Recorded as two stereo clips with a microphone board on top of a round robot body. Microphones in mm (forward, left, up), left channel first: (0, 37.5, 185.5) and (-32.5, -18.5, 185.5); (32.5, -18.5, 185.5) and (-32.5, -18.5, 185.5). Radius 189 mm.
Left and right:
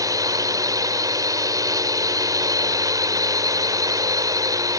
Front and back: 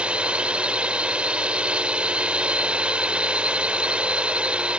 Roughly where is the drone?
Right.